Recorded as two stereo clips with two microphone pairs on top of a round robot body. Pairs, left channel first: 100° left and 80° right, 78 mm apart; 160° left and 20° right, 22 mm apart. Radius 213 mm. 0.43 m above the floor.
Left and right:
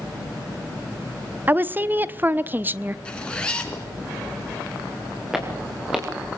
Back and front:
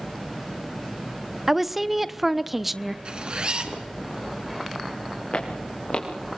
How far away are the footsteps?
About 4.5 m.